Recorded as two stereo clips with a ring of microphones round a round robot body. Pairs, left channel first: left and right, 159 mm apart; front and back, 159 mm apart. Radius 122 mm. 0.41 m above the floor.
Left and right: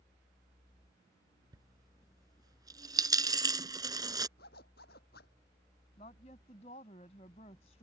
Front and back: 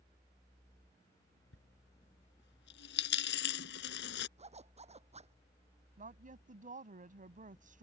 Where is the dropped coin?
25° right.